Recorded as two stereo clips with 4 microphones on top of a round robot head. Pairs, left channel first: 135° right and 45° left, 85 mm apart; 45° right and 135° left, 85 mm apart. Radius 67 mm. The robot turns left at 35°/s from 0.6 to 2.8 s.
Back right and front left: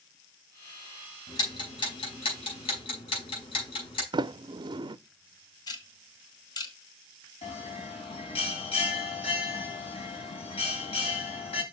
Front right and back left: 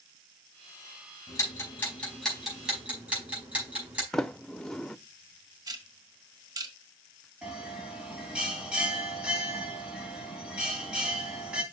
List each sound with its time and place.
1.3 s ticking: 95° right, 5 m; by 4.0 s 145° right, 5 m
4.1 s a sliding door: 40° left, 0.6 m
5.7 s ticking: 175° right, 1.6 m
7.4 s a bell: 145° right, 3 m